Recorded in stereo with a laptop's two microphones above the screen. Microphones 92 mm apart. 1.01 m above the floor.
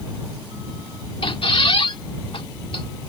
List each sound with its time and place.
1.2 s a squeak: 75° left (ahead or behind)